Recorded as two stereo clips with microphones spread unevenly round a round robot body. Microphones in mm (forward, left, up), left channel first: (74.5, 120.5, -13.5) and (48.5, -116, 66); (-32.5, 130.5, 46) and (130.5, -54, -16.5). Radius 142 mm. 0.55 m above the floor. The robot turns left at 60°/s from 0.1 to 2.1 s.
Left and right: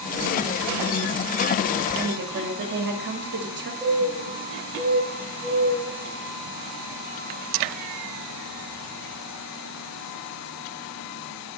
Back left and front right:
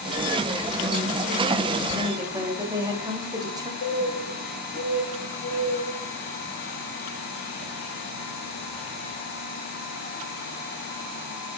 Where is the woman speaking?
50° right, 1.1 m; by 3.7 s 60° right, 1.1 m.